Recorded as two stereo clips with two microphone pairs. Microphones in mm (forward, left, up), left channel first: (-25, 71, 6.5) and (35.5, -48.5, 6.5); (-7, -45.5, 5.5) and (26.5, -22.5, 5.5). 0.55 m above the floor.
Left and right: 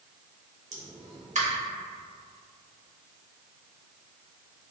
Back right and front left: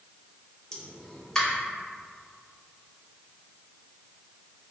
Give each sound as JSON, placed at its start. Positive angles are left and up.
{"t": 0.7, "sound": "a pop", "azimuth_deg": -70, "distance_m": 0.6}